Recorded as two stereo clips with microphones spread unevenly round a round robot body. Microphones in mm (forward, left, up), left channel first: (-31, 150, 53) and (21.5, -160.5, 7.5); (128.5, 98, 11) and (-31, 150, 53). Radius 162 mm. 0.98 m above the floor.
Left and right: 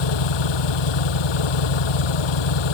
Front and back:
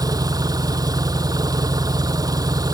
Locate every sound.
0.0 s an engine running: 95° left